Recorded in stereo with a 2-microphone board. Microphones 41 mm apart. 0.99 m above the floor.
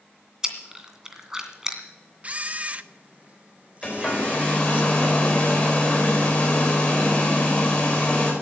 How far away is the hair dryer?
About 4.5 m.